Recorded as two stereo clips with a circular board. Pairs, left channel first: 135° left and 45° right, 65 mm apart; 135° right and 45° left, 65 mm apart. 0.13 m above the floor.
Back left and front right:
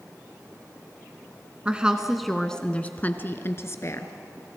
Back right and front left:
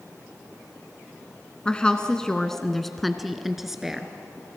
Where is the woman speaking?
85° right, 1.1 m; by 4.1 s 125° left, 1.6 m.